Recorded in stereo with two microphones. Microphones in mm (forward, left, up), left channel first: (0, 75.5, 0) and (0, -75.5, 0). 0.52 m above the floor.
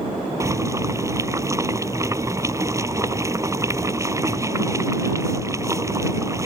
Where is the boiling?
20° right (ahead or behind).